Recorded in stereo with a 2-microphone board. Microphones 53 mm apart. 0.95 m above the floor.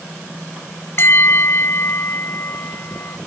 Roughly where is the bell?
Left.